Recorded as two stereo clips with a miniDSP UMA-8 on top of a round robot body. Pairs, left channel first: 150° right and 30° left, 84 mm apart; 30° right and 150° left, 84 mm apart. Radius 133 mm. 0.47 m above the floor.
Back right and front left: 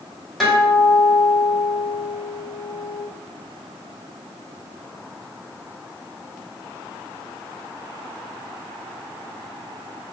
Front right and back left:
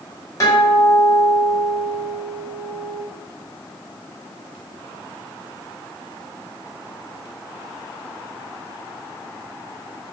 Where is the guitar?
60° right, 1.6 m.